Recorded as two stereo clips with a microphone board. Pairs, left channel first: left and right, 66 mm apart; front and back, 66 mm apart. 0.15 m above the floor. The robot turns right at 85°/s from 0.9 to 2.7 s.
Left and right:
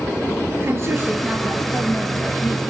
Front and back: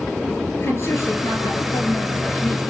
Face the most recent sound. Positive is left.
turn(degrees=105)